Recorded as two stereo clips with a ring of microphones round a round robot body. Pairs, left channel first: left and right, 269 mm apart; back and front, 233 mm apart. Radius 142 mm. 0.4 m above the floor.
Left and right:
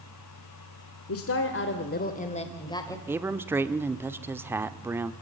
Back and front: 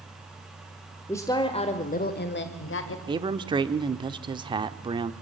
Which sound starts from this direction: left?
A woman speaking, at 1.1 s.